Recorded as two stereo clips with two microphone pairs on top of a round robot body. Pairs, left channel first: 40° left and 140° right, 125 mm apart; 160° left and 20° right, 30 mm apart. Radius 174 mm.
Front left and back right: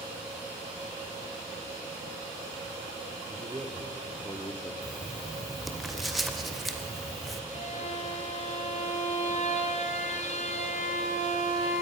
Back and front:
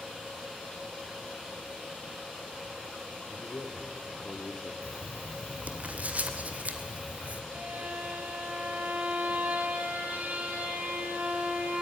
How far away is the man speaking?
About 2 m.